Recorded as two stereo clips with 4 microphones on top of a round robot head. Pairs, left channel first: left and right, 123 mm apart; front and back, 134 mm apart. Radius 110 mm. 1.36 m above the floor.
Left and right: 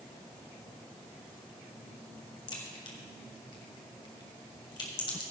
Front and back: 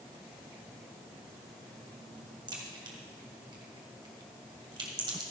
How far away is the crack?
About 1.7 m.